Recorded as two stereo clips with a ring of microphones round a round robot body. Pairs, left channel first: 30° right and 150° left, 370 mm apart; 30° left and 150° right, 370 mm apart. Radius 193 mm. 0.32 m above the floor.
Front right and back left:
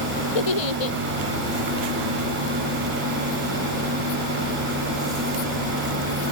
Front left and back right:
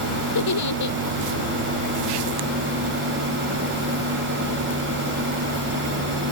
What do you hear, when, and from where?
0.3 s a giggle: 15° right